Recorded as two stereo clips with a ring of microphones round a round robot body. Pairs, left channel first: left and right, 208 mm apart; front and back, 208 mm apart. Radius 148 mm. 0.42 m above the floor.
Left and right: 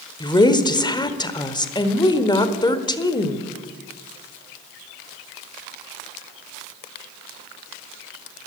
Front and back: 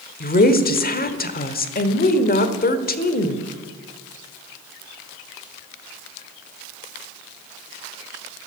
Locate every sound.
0.2 s a woman speaking: 25° left, 1.3 m